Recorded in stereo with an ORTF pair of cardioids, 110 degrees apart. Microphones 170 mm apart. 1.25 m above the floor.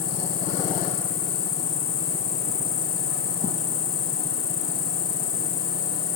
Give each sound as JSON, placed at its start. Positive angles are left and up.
{"t": 0.0, "sound": "an insect", "azimuth_deg": 60, "distance_m": 1.0}